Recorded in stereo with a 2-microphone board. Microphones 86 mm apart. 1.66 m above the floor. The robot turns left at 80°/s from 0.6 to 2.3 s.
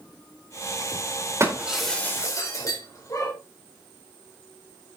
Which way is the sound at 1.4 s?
35° right (ahead or behind).